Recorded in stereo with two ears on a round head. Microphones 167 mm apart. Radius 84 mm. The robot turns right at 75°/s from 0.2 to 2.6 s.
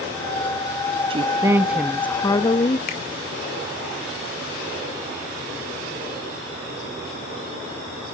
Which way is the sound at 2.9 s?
50° left (ahead or behind).